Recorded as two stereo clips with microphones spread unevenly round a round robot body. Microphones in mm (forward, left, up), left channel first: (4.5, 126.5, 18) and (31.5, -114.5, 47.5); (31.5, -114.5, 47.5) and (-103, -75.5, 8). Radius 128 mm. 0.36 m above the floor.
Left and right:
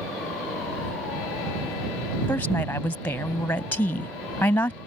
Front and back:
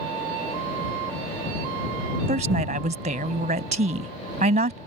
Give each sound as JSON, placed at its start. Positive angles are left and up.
{"t": 2.3, "sound": "a woman speaking", "azimuth_deg": 175}